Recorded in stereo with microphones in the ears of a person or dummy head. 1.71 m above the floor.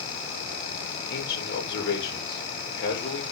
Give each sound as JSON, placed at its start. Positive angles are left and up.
{"t": 1.1, "sound": "a man speaking", "side_deg": 65, "distance_m": 5.5}